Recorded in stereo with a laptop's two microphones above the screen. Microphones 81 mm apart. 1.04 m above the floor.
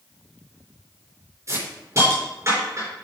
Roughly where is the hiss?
Right.